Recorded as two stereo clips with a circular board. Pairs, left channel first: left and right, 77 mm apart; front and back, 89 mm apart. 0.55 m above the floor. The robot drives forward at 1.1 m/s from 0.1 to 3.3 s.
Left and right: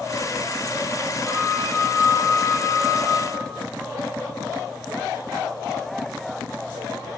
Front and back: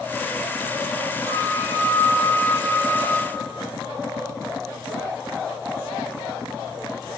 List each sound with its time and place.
1.2 s a flute: 165° left, 5.5 m; by 3.6 s 170° left, 7.5 m